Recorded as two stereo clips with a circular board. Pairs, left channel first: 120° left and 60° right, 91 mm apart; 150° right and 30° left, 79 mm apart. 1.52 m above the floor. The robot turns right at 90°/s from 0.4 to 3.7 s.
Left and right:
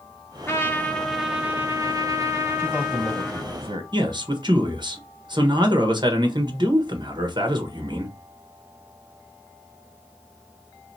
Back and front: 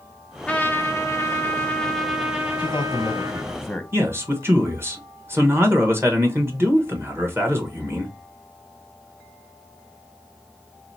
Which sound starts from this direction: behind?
A man speaking, at 2.6 s.